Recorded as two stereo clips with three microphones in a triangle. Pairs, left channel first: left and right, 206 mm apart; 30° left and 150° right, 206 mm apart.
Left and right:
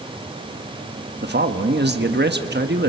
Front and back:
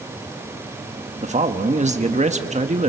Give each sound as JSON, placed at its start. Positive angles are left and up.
{"t": 1.2, "sound": "a man speaking", "azimuth_deg": -100, "distance_m": 1.3}